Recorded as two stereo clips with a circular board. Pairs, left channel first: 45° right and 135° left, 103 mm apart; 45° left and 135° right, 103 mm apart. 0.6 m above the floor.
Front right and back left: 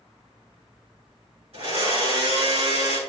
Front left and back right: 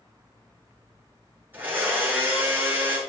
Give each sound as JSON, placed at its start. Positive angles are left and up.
{"t": 1.5, "sound": "a blender", "azimuth_deg": 150, "distance_m": 5.0}